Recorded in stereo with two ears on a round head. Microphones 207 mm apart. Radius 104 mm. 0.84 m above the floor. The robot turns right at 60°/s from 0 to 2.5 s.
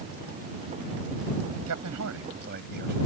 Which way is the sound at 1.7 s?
95° right.